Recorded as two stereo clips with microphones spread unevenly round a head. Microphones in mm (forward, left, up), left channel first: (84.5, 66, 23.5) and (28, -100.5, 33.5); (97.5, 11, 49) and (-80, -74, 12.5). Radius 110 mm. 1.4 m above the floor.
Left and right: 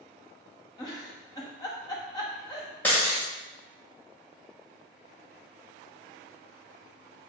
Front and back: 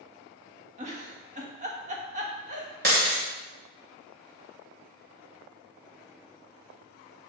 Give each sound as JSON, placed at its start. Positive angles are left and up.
{"t": 0.8, "sound": "a giggle", "azimuth_deg": 145, "distance_m": 1.0}
{"t": 2.8, "sound": "breaking glass", "azimuth_deg": 155, "distance_m": 2.0}